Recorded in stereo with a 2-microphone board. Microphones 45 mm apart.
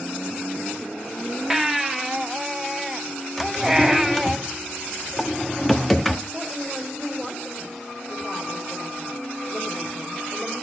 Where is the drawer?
Centre (ahead or behind), 1.1 m.